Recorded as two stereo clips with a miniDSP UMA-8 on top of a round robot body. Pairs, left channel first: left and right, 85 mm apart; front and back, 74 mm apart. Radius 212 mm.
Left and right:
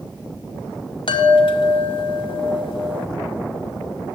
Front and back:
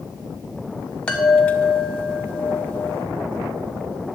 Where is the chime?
75° left, 1.2 m.